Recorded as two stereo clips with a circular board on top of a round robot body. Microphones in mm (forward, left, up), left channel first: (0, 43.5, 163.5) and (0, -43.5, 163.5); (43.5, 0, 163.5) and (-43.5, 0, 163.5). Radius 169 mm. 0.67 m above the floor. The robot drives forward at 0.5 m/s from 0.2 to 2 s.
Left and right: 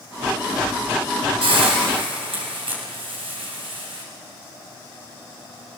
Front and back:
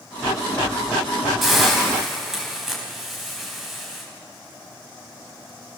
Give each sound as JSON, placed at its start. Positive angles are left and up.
{"t": 1.4, "sound": "a hiss", "azimuth_deg": -90, "distance_m": 5.0}